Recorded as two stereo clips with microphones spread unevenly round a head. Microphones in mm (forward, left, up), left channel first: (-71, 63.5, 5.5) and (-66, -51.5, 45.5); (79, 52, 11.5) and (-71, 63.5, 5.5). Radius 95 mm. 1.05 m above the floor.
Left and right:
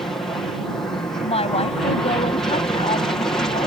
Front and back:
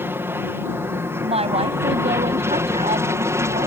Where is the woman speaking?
125° left.